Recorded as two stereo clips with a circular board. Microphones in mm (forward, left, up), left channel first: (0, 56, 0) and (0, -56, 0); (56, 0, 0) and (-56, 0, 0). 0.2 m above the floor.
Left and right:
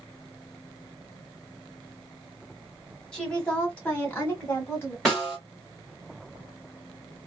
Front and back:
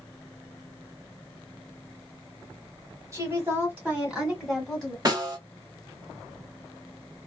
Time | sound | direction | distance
3.1 | a woman speaking | 165° left | 1.5 m
5.0 | a snare drum | 175° left | 2.0 m